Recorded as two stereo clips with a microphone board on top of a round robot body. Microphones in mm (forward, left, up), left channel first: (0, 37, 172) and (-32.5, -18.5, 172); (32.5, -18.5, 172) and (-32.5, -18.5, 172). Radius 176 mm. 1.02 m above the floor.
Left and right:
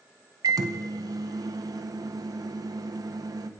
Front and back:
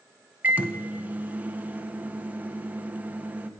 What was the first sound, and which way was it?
A microwave, 115° right.